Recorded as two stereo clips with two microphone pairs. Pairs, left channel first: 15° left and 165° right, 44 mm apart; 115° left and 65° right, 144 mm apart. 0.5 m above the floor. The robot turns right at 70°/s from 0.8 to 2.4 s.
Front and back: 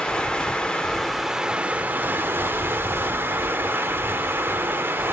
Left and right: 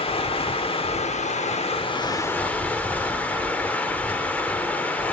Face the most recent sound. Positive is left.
turn(degrees=-170)